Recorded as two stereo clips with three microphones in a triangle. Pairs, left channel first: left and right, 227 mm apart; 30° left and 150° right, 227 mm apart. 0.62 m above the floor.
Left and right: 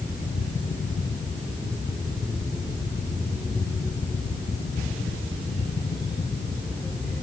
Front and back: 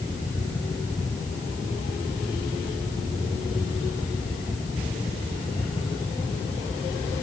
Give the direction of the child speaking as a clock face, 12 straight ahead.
I don't hear a child speaking.